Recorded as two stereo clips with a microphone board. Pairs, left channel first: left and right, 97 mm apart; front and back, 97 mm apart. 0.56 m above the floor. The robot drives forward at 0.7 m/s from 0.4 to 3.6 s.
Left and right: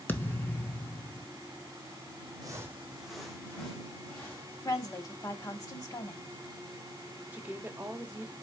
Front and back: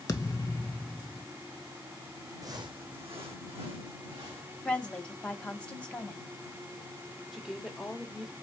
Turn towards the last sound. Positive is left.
turn(degrees=-100)